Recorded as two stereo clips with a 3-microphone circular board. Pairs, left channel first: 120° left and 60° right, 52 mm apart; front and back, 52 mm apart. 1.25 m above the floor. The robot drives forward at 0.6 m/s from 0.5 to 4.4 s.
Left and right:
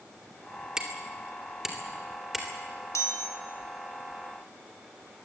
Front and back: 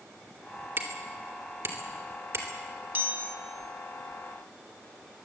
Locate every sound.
0.8 s hammering: 135° right, 2.5 m; by 2.5 s 150° right, 3.5 m
3.0 s a chime: 130° left, 2 m; by 3.4 s 135° left, 2.5 m